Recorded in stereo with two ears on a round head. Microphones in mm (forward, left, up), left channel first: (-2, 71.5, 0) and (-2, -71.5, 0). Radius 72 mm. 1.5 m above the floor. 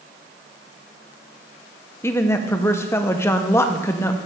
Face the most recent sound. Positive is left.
turn(degrees=15)  # may be behind; listen again after turning